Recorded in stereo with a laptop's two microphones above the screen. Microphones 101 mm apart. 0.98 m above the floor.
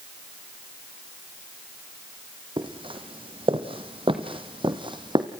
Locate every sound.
2.6 s footsteps: 55° right (ahead or behind), 2 m; by 5.3 s 50° right (ahead or behind), 2.0 m